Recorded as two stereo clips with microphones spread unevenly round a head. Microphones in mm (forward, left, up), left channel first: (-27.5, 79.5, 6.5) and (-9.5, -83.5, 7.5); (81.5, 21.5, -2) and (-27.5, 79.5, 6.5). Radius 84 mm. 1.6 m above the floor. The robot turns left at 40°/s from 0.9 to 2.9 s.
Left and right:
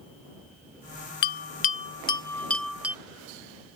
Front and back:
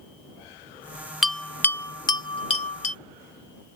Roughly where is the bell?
Ahead left.